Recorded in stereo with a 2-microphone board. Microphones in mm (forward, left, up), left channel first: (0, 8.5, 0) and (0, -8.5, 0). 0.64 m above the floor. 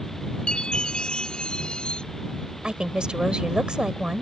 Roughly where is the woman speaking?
Right.